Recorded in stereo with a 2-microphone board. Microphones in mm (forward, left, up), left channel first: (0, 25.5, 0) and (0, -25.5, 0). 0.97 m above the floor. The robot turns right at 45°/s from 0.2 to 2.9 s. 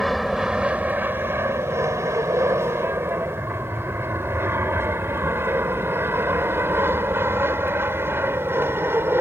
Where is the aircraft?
5° right (ahead or behind); by 9.2 s 45° right (ahead or behind).